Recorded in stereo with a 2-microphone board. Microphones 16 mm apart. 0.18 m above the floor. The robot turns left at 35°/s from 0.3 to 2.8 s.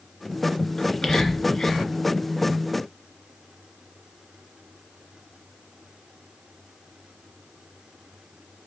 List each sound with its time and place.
0.8 s whispering: 35° left (ahead or behind), 2.0 m